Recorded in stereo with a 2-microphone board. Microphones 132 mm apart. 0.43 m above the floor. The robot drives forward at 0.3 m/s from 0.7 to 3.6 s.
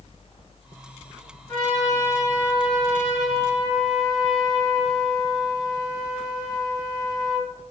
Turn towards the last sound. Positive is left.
turn(degrees=30)  # may be behind; listen again after turning